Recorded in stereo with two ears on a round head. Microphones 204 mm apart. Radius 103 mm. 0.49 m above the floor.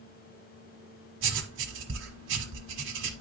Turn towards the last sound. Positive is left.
turn(degrees=-60)  # may be behind; listen again after turning